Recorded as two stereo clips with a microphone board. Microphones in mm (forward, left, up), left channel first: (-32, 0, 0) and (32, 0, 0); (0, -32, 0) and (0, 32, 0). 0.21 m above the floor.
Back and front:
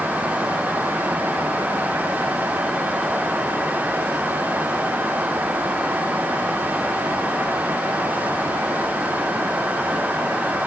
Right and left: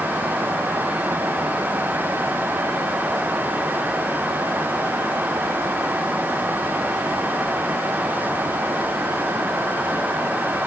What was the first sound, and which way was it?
Only background noise.